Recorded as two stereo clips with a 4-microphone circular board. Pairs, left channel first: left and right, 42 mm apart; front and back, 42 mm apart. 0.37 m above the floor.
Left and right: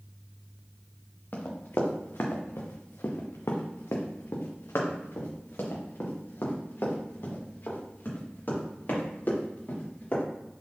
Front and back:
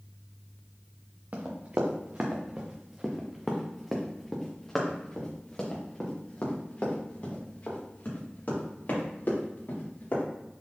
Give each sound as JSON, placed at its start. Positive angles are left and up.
{"t": 1.3, "sound": "running footsteps", "azimuth_deg": 135, "distance_m": 1.9}